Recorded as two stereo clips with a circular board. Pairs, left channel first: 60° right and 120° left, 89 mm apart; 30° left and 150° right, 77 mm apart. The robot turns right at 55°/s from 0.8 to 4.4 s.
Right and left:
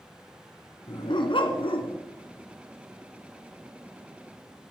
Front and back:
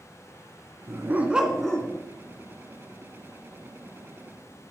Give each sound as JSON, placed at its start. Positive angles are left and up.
{"t": 0.9, "sound": "a dog barking", "azimuth_deg": -100, "distance_m": 1.5}